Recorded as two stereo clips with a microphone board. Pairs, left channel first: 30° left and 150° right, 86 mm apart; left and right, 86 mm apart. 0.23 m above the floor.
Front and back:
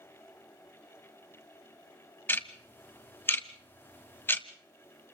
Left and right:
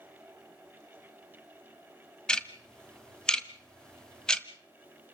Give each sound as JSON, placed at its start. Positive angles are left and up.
{"t": 2.3, "sound": "ticking", "azimuth_deg": 25, "distance_m": 1.3}